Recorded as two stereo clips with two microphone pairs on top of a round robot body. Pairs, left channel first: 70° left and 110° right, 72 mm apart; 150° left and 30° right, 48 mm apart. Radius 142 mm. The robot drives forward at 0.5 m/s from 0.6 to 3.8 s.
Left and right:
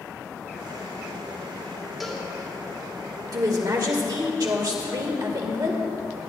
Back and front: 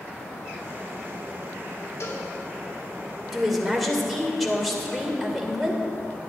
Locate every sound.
2.0 s a cowbell: 165° left, 1.6 m; by 2.3 s 170° left, 1.7 m
3.3 s a woman speaking: 110° right, 2 m; by 5.8 s 115° right, 2 m